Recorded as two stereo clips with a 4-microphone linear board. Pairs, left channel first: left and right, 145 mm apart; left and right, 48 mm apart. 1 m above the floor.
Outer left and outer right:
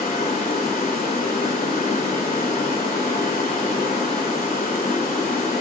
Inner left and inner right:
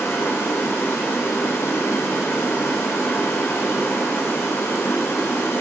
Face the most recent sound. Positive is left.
turn(degrees=85)